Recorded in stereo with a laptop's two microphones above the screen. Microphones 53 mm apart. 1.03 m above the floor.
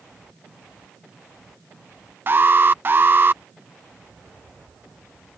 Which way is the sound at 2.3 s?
40° right (ahead or behind).